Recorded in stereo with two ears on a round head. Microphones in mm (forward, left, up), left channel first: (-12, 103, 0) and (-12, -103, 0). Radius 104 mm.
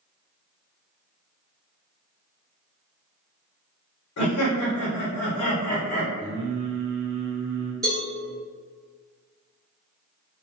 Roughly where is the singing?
Right.